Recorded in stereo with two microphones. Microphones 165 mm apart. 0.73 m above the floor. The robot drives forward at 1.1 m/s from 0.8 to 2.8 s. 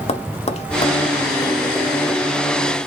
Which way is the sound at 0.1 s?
40° left (ahead or behind).